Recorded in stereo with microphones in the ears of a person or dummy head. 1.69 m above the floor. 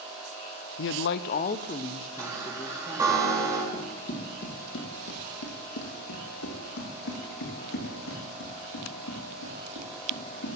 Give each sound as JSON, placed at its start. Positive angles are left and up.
{"t": 0.8, "sound": "a man speaking", "side_deg": 60, "distance_m": 0.7}
{"t": 2.2, "sound": "a chime", "side_deg": -20, "distance_m": 4.0}
{"t": 3.7, "sound": "running footsteps", "side_deg": 40, "distance_m": 2.5}